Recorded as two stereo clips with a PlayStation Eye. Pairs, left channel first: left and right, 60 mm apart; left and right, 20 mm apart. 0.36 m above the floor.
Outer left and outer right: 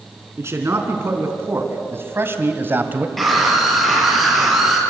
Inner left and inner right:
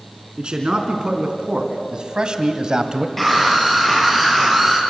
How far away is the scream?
About 8.5 m.